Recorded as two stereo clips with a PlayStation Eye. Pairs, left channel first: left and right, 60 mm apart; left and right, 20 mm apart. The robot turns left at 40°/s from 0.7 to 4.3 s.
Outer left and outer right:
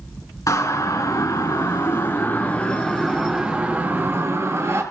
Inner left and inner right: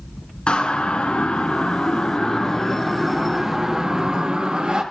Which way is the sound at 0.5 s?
65° left (ahead or behind).